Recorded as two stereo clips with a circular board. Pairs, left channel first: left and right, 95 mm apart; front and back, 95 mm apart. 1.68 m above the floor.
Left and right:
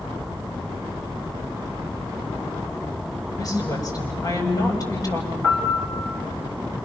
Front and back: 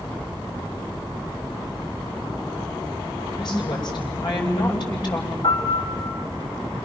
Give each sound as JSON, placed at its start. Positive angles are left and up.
{"t": 3.4, "sound": "a woman speaking", "azimuth_deg": 40, "distance_m": 8.5}
{"t": 5.4, "sound": "a piano", "azimuth_deg": 10, "distance_m": 5.0}